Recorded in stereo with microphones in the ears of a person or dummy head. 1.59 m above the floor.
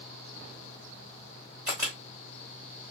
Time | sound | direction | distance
1.7 | a camera shutter | 15° right (ahead or behind) | 1.3 m